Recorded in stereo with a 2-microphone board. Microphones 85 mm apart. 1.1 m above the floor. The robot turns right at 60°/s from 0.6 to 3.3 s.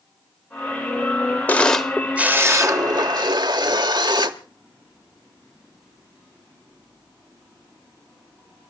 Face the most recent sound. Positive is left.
turn(degrees=-95)